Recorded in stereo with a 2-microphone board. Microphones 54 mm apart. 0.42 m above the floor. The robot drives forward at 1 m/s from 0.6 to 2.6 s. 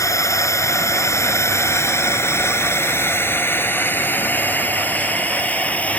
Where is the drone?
75° left (ahead or behind); by 6.0 s 25° left (ahead or behind).